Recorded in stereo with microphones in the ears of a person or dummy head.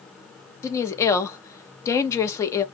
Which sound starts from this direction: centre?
A woman speaking, at 0.6 s.